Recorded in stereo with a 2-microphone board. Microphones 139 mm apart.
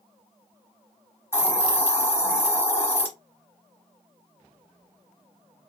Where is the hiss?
15° left (ahead or behind), 0.8 m.